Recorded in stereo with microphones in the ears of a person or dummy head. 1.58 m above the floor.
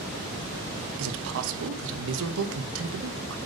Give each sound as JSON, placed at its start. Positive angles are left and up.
{"t": 1.0, "sound": "a man speaking", "side_deg": -75, "distance_m": 1.1}